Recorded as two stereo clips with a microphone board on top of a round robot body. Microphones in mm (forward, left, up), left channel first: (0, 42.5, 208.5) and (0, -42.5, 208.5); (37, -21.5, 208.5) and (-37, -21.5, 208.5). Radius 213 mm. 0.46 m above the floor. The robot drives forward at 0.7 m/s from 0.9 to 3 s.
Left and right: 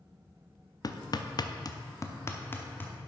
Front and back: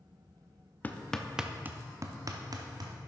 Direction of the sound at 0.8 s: 60° left.